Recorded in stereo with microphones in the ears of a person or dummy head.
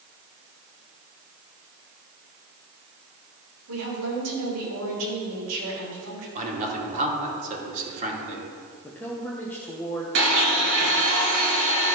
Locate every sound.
3.7 s a woman speaking: 80° right, 3.5 m
6.3 s a man speaking: 45° right (ahead or behind), 2.5 m
8.8 s a woman speaking: 15° left (ahead or behind), 0.9 m
10.2 s a blender: 65° right (ahead or behind), 2.5 m